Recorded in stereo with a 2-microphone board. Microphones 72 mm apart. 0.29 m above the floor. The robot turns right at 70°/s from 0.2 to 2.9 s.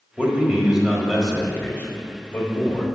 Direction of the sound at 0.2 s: 20° right (ahead or behind).